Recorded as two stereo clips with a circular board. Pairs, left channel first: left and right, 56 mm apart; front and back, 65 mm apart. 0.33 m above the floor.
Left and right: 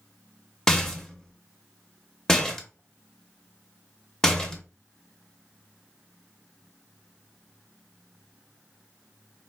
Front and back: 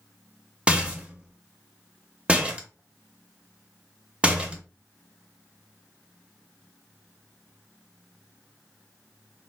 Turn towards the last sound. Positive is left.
turn(degrees=155)